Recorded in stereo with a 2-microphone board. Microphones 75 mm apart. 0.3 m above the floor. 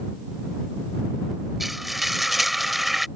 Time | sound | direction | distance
1.6 | frying | centre (ahead or behind) | ?